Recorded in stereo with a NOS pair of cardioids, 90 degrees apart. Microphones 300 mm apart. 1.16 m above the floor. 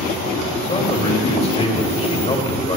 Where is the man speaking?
20° left, 2.5 m.